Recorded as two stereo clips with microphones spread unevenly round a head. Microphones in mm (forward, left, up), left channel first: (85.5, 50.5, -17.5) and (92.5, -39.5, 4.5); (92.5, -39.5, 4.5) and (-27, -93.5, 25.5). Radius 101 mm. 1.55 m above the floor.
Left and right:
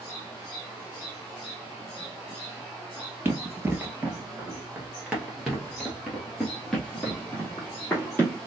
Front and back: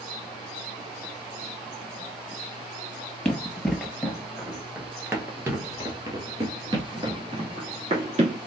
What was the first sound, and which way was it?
Running footsteps, 60° right.